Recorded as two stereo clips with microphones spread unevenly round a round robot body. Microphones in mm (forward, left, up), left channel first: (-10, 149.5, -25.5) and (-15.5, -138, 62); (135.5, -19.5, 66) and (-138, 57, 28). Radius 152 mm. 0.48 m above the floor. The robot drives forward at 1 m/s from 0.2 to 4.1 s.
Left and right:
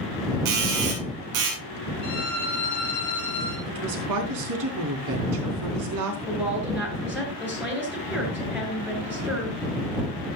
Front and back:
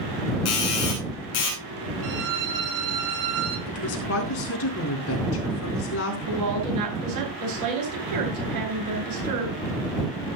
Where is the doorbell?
55° right, 8.5 m; by 1.6 s 65° right, 7.5 m.